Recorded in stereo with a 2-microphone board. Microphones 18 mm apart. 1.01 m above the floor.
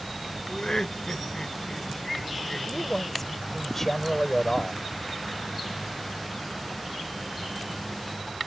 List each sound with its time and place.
0.5 s laughter: 40° left (ahead or behind)
2.7 s a man speaking: 15° left (ahead or behind)